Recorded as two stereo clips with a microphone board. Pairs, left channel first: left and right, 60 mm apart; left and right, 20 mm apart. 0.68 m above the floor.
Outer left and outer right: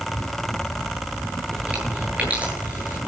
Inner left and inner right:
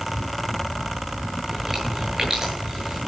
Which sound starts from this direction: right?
Chewing, at 1.4 s.